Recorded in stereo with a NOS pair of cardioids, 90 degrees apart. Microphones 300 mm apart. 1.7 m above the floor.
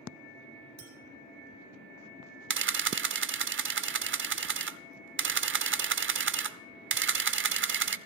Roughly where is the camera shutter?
Ahead right.